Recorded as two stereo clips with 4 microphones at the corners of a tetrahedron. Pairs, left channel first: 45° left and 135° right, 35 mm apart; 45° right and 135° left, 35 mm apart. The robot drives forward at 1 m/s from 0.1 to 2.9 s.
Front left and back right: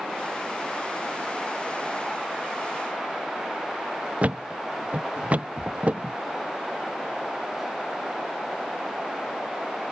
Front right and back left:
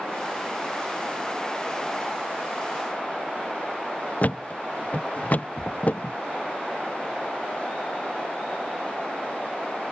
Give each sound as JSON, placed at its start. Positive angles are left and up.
{"t": 4.2, "sound": "a thud", "azimuth_deg": -85}